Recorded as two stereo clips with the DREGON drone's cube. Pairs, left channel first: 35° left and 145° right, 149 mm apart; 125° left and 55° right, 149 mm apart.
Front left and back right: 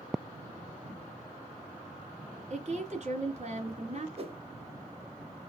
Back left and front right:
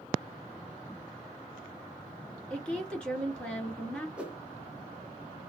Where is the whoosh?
135° right, 0.6 m.